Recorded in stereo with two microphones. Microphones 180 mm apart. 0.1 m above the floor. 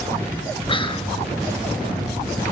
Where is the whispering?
30° left (ahead or behind), 1.5 m.